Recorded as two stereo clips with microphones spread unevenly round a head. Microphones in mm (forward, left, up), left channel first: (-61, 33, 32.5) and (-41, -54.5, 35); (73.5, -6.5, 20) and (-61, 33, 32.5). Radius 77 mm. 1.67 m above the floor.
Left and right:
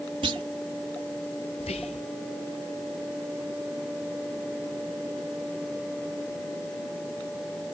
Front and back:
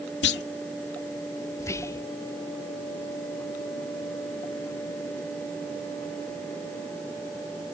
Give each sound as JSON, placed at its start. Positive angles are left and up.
{"t": 0.2, "sound": "a clunk", "azimuth_deg": -20}
{"t": 1.6, "sound": "whispering", "azimuth_deg": 55}